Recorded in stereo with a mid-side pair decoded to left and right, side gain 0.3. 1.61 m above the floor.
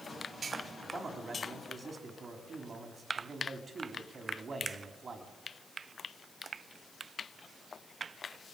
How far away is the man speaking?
About 4.5 m.